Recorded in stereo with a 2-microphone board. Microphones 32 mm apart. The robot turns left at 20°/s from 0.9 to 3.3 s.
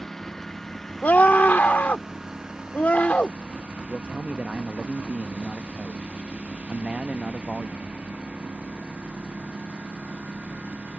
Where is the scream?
100° left; by 3.4 s 55° left.